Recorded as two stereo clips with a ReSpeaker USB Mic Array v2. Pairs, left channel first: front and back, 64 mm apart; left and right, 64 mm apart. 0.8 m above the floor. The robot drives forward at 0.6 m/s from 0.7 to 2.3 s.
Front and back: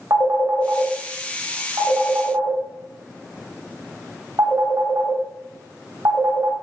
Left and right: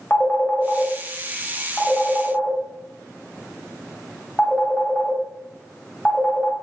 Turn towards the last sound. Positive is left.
turn(degrees=160)